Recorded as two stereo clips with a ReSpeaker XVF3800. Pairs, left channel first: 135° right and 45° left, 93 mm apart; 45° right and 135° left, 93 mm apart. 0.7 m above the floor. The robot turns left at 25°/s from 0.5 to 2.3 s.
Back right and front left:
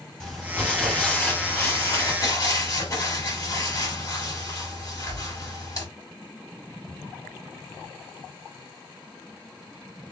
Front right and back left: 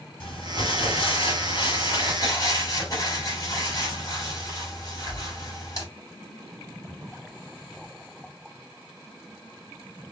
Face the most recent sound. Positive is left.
turn(degrees=-90)